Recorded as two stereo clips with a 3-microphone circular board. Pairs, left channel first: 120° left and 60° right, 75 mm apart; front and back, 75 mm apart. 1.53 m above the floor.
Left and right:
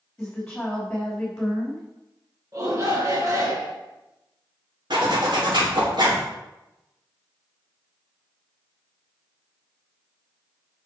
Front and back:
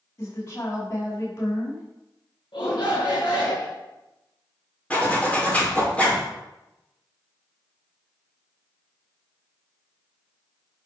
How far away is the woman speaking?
About 4 m.